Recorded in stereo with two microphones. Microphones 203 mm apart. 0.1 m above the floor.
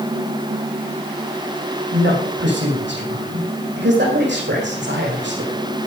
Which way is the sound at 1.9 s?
65° right (ahead or behind).